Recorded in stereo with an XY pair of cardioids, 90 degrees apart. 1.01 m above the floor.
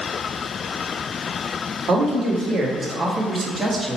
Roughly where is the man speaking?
Ahead right.